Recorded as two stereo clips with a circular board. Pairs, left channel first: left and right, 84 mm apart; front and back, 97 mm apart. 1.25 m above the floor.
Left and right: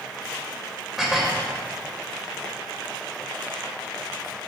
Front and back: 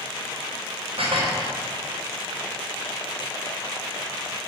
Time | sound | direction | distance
1.0 | dishes clattering | 175° right | 4 m